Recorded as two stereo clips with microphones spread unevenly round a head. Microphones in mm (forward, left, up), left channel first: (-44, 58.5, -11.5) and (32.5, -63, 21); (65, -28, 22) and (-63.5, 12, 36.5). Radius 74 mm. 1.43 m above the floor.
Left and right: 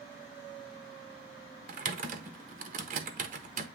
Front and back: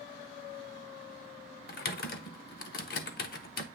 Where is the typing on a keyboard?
35° right, 0.9 m.